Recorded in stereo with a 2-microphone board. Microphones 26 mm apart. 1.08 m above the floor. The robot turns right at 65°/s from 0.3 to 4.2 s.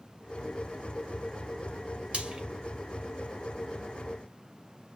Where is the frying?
50° right (ahead or behind), 2 m; by 2.4 s 30° right (ahead or behind), 2 m.